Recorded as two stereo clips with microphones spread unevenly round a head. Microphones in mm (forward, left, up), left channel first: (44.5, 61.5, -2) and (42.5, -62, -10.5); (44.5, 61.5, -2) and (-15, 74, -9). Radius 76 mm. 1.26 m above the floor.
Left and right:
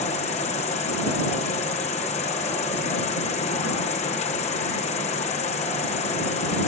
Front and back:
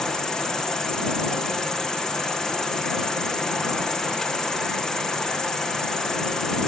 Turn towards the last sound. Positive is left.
turn(degrees=70)